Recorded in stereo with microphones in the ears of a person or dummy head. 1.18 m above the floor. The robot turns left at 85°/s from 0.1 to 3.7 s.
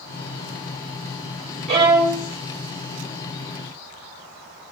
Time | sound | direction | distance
1.7 | a violin | 140° right | 2.5 m